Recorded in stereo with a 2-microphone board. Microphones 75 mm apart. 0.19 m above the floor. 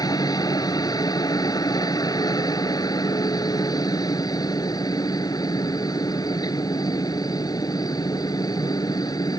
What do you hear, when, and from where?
0.0 s a helicopter: 60° left (ahead or behind)